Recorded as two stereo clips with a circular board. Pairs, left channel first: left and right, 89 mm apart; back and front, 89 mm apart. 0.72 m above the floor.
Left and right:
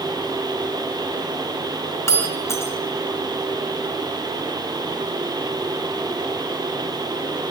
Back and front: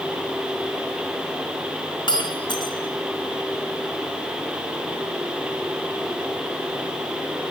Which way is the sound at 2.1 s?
150° left.